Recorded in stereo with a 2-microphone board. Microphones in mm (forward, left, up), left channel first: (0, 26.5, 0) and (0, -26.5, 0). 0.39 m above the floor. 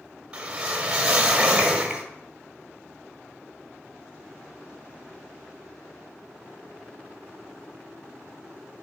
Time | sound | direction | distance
0.3 | a whoosh | 15° right (ahead or behind) | 0.9 m